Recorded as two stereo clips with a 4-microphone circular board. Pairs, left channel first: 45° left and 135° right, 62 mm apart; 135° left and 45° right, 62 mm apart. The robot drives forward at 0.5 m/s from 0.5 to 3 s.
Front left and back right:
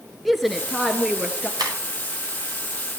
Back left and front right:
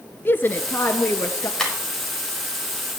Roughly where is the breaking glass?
Behind right.